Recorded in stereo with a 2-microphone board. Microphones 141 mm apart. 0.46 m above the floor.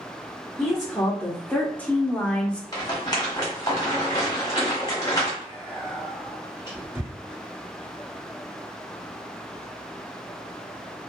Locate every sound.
0.6 s a woman speaking: 5° left (ahead or behind), 1.1 m
2.7 s a rattle: 30° left (ahead or behind), 1.4 m
5.4 s whispering: 20° right (ahead or behind), 1.5 m